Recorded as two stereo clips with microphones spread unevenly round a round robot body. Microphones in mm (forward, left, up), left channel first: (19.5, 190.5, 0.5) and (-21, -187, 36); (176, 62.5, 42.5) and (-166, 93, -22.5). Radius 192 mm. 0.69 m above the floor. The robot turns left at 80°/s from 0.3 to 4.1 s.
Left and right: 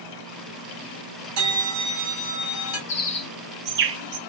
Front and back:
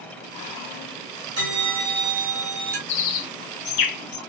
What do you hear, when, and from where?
1.4 s a bell: 120° right, 1.7 m; by 2.8 s 125° left, 1.7 m
2.9 s a bird: 40° left, 0.7 m; by 4.2 s 60° right, 0.7 m